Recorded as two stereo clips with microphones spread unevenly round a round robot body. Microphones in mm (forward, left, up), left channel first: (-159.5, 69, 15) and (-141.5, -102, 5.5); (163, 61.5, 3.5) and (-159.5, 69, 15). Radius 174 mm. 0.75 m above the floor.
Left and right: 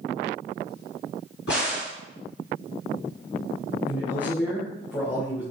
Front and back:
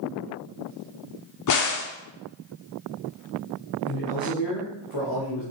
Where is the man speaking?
20° left, 1.8 m.